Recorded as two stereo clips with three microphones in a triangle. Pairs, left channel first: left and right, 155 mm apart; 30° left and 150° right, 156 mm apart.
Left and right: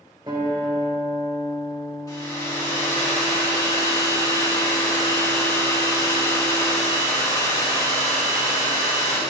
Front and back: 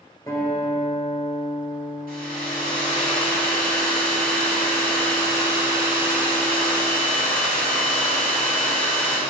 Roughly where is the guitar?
Ahead right.